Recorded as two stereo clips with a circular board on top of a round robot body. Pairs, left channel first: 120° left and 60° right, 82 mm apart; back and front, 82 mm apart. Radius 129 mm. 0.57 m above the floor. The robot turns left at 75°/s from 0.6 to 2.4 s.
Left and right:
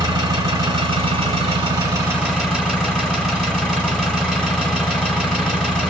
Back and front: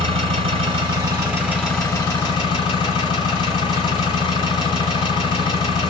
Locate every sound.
0.0 s an engine running: 15° right, 1.3 m; by 5.9 s 150° right, 1.3 m